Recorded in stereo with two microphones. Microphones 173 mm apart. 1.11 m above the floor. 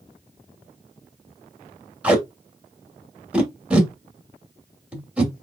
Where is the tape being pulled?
5° right (ahead or behind), 1.3 m.